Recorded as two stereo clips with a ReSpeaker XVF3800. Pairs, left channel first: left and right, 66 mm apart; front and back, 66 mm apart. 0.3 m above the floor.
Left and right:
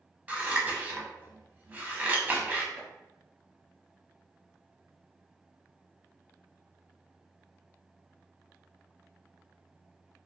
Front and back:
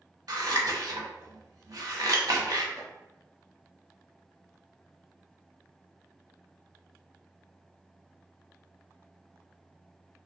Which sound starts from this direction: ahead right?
Chopping, at 2.8 s.